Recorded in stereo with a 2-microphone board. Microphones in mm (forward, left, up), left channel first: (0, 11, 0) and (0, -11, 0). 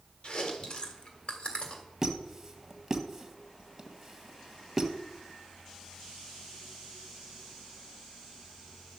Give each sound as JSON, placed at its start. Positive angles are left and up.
{"t": 0.2, "sound": "chewing", "side_deg": 55, "distance_m": 1.7}
{"t": 2.0, "sound": "a squeak", "side_deg": -20, "distance_m": 1.3}